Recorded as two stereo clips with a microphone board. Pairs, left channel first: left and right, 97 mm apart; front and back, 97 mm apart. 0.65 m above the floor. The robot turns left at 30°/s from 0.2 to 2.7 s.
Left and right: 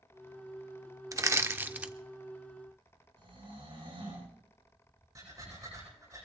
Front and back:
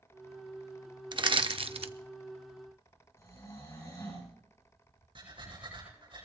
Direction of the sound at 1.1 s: 145° right.